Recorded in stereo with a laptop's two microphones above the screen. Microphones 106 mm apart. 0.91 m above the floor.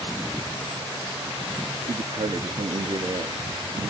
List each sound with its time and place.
1.9 s a man speaking: 50° right (ahead or behind), 1.5 m